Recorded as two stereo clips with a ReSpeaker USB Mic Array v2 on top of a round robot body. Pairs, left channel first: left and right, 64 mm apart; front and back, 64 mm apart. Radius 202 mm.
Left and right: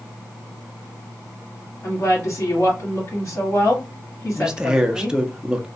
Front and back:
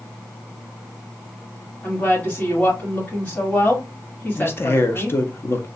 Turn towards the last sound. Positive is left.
turn(degrees=-15)